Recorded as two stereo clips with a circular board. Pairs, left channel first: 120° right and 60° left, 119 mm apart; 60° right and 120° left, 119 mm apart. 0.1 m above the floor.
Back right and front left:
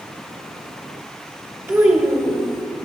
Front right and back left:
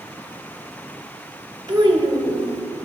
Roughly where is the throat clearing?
No throat clearing in this recording.